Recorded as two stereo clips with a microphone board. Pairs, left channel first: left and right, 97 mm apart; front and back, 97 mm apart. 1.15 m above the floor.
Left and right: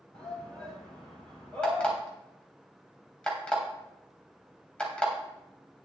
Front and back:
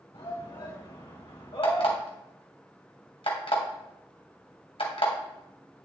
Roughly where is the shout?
Ahead.